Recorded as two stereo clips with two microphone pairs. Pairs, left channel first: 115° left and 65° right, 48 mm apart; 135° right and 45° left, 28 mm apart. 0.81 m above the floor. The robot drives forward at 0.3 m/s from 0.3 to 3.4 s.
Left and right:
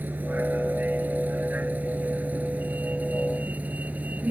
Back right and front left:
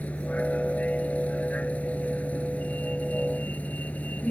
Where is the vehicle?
115° right; by 4.3 s 120° right.